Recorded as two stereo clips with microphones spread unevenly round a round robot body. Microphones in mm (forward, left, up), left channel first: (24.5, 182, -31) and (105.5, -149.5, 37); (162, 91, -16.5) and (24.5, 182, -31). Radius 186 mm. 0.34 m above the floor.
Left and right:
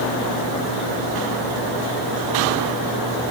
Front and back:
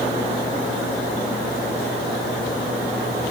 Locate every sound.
Only background noise.